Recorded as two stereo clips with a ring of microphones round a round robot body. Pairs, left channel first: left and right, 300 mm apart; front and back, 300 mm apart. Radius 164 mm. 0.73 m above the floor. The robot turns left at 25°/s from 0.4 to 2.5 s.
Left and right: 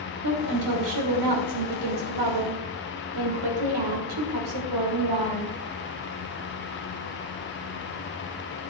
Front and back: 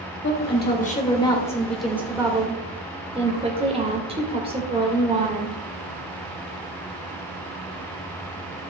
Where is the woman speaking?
55° right, 2.5 m; by 5.6 s 105° right, 2.5 m.